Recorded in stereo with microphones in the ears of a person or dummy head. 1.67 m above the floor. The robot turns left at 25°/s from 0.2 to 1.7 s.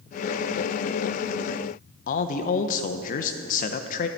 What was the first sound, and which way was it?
A man speaking, 55° left (ahead or behind).